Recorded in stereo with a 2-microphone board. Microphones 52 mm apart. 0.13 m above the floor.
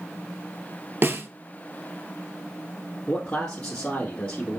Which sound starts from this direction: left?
A man speaking, at 3.1 s.